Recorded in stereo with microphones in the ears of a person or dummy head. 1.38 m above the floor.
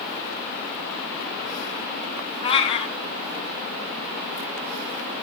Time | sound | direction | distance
2.4 | a cat meowing | 30° left (ahead or behind) | 3 m